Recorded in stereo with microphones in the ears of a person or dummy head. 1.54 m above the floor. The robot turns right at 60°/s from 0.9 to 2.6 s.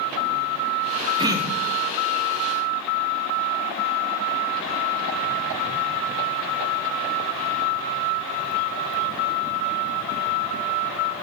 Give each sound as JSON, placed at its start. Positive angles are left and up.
{"t": 1.2, "sound": "throat clearing", "azimuth_deg": -20, "distance_m": 2.5}